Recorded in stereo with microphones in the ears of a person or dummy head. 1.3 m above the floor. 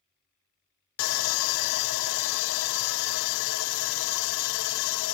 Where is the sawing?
75° left (ahead or behind), 0.5 m.